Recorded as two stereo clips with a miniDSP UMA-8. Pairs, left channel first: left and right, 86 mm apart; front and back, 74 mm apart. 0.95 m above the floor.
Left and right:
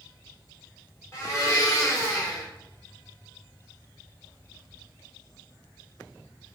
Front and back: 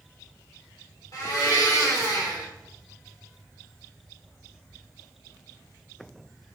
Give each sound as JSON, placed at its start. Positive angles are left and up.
{"t": 1.1, "sound": "a blender", "azimuth_deg": 35, "distance_m": 1.5}